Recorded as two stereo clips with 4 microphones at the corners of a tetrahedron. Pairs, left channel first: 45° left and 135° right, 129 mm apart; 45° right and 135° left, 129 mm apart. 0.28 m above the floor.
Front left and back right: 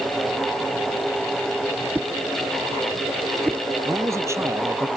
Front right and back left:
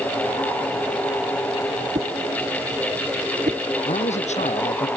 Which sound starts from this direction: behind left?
A whoosh, at 1.9 s.